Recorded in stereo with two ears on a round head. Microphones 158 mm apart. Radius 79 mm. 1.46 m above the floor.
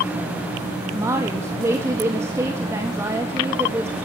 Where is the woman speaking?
15° right (ahead or behind), 1.7 m.